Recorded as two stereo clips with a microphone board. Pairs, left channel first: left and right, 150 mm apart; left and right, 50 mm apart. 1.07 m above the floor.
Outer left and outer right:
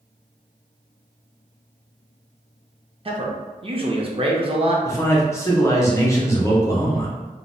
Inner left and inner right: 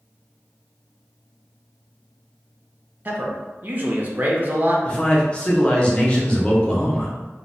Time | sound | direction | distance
3.0 | a man speaking | 40° right (ahead or behind) | 0.6 m
4.8 | a man speaking | 20° left (ahead or behind) | 0.6 m